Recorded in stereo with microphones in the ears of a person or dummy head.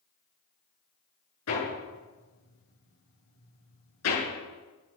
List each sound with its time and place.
1.5 s hammering: 80° left, 7.5 m